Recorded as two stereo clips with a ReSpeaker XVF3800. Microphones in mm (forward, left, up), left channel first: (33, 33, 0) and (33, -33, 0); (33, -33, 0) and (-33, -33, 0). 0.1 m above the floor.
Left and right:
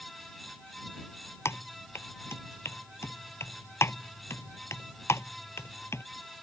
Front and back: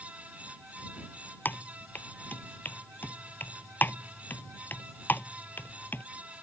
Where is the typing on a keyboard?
50° left.